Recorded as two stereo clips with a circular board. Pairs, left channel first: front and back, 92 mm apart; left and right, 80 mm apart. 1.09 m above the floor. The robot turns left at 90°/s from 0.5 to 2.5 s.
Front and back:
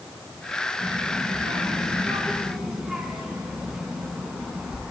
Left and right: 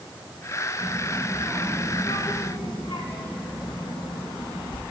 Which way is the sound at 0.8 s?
110° right.